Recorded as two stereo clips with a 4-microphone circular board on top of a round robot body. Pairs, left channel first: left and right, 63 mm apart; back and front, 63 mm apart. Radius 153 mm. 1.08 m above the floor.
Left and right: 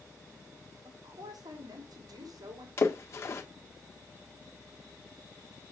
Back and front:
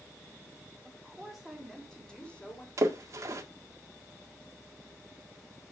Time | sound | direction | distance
0.8 | a woman speaking | 85° right | 3.5 m
2.8 | a splash | 40° left | 1.7 m